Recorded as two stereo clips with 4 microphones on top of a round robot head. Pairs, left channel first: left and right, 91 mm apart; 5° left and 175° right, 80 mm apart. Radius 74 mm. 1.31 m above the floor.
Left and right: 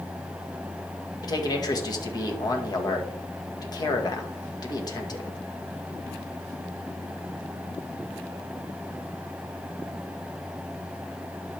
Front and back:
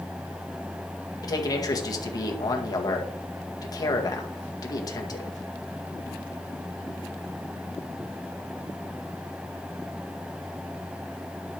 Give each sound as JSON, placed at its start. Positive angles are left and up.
{"t": 1.2, "sound": "a man speaking", "azimuth_deg": 45, "distance_m": 2.0}